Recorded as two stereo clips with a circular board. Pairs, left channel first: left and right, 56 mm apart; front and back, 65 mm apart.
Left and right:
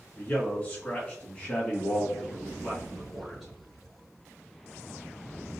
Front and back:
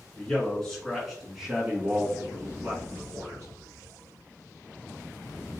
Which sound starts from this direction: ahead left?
A man speaking, at 0.1 s.